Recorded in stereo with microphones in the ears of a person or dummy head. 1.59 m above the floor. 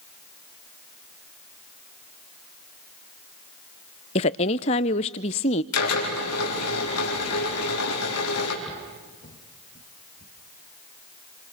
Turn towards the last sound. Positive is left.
turn(degrees=55)  # may be behind; listen again after turning